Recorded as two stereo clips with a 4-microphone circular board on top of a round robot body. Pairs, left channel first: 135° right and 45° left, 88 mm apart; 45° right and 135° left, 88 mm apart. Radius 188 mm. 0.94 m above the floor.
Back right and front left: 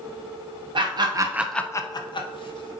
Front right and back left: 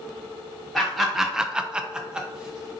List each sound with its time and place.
0.8 s laughter: 45° left, 0.8 m; by 2.7 s 145° right, 1.1 m